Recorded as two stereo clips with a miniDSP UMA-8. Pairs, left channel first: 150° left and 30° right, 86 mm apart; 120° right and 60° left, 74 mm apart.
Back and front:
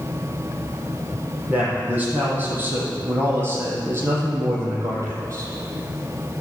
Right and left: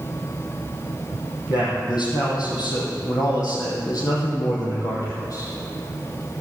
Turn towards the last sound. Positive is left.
turn(degrees=-80)